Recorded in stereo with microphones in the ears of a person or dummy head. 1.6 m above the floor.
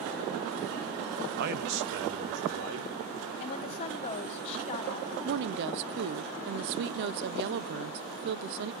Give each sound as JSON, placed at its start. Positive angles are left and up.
{"t": 1.4, "sound": "a man speaking", "side_deg": -60, "distance_m": 0.8}
{"t": 3.4, "sound": "a woman speaking", "side_deg": 40, "distance_m": 1.1}
{"t": 5.2, "sound": "a woman speaking", "side_deg": -60, "distance_m": 0.7}